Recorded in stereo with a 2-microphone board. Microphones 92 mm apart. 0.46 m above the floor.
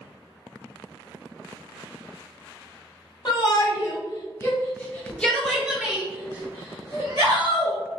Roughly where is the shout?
Left.